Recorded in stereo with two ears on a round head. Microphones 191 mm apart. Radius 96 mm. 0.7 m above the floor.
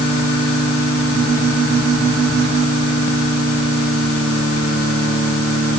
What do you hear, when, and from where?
Only background noise.